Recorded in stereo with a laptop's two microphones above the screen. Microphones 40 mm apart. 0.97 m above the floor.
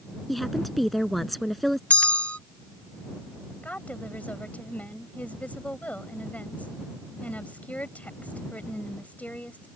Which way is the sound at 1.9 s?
35° left (ahead or behind).